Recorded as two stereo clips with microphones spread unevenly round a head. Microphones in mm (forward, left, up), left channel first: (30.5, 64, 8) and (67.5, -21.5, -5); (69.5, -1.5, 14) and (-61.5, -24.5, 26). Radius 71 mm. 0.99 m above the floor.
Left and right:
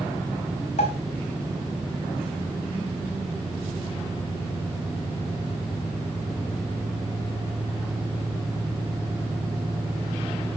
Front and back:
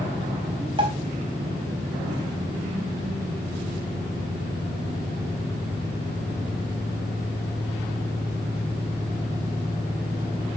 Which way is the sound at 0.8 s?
135° left.